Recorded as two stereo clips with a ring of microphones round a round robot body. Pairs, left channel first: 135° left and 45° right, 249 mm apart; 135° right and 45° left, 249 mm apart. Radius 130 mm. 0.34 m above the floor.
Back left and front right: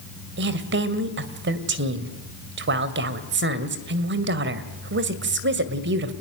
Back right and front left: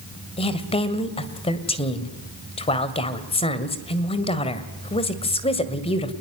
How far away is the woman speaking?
About 2.5 m.